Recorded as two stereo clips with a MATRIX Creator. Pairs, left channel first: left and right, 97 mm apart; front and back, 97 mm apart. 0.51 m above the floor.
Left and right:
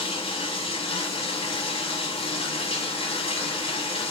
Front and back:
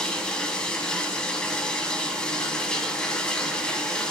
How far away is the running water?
About 0.9 m.